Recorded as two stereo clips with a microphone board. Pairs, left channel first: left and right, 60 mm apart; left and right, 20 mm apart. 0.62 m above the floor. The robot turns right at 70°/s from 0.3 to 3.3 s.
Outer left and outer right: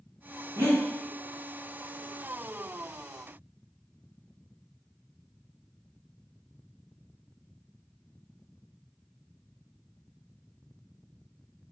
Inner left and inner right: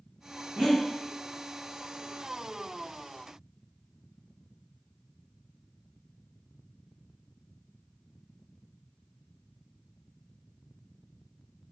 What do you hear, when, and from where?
0.6 s breathing: 40° right (ahead or behind), 1.3 m; by 0.8 s 25° right (ahead or behind), 1.3 m